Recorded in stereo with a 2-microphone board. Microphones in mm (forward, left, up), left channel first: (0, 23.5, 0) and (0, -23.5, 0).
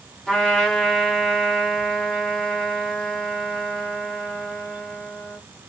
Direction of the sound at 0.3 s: 10° left (ahead or behind).